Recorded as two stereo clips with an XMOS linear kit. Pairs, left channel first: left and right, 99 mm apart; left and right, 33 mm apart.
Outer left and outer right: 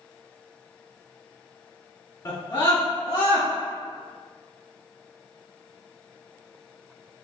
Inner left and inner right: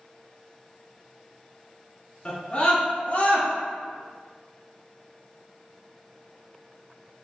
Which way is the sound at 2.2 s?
35° left (ahead or behind).